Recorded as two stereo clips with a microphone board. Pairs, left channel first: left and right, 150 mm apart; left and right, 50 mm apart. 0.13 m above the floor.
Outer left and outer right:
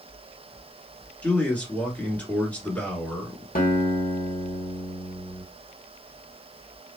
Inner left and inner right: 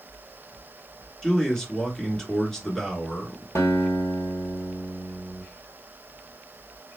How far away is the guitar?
About 1.2 m.